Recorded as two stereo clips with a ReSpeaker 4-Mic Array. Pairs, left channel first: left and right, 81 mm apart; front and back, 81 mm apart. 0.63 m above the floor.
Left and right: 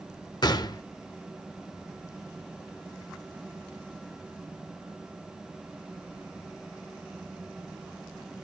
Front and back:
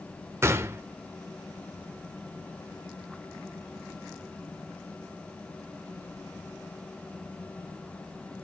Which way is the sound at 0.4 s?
125° left.